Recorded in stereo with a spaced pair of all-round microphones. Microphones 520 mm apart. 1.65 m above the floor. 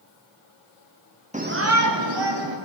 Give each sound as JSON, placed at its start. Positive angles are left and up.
{"t": 1.3, "sound": "a shout", "side_deg": -15, "distance_m": 0.8}